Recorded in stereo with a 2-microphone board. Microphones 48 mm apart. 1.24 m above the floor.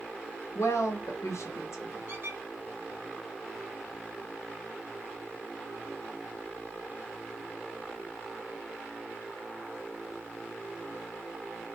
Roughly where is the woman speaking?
Left.